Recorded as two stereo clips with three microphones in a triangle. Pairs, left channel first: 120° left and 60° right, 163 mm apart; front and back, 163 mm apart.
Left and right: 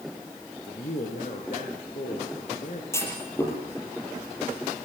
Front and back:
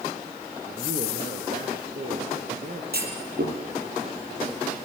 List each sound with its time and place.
0.7 s a man speaking: 150° left, 3.5 m
2.9 s a clunk: 165° right, 6.5 m